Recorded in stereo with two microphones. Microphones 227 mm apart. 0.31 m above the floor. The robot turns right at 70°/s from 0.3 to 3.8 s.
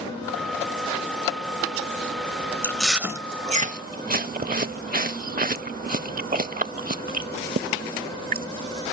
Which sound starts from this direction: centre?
Chewing, at 2.6 s.